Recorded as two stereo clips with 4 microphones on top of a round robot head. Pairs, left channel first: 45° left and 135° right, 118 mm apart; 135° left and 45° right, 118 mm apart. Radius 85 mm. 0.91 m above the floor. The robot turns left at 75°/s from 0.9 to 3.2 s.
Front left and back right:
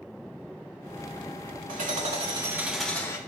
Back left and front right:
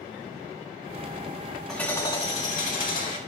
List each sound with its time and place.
1.7 s hammering: 140° right, 3 m; by 3.2 s 105° left, 3 m